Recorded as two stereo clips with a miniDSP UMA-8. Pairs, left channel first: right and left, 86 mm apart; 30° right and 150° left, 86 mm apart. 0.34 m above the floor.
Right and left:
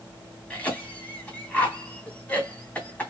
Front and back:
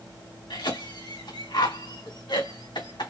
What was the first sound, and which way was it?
A cough, 20° right.